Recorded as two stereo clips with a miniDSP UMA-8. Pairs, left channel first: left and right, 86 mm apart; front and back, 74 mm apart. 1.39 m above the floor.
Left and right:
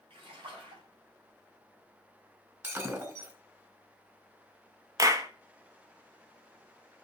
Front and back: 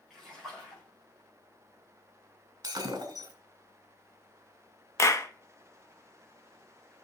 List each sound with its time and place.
0.1 s a splash: 85° right, 5.5 m
2.6 s breaking glass: 150° right, 3 m
5.0 s a clap: 45° right, 1.1 m